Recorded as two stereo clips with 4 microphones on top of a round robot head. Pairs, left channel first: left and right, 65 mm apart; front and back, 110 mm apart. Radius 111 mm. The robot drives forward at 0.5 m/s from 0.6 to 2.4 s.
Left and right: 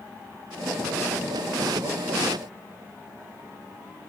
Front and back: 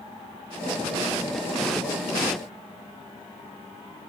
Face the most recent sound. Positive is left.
No sound to turn to.